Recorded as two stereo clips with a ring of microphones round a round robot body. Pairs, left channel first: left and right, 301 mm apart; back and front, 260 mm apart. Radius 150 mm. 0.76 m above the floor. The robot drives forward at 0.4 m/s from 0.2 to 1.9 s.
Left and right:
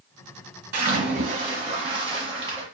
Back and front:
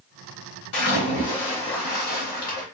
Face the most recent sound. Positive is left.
turn(degrees=-160)